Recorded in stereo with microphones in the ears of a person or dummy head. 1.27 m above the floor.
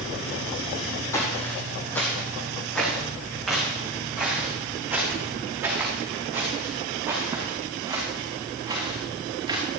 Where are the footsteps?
20° left (ahead or behind), 3 m; by 9.6 s 15° right (ahead or behind), 6 m.